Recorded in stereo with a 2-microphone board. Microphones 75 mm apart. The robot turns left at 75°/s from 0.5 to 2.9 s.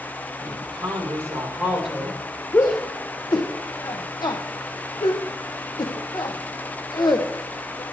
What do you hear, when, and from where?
0.4 s a woman speaking: 80° right, 4.5 m; by 2.2 s 155° left, 4.5 m
2.5 s a shout: 40° left (ahead or behind), 1.0 m; by 7.8 s 65° left (ahead or behind), 1.0 m